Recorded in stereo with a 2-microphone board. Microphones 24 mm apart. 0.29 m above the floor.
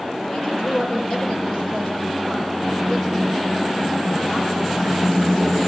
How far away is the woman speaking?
About 8.5 m.